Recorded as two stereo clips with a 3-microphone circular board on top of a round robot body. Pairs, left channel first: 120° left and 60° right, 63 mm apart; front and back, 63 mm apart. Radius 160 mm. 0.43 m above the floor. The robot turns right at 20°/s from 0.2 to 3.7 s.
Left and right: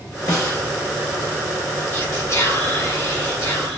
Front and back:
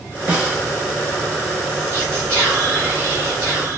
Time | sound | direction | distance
0.3 | a snare drum | 115° left | 3 m
1.9 | whispering | 135° left | 2.0 m